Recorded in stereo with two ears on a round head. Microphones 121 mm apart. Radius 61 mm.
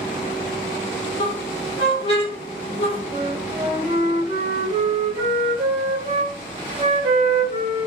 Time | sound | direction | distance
1.2 | a squeak | 45° left (ahead or behind) | 1.1 m
3.1 | a flute | 40° right (ahead or behind) | 1.2 m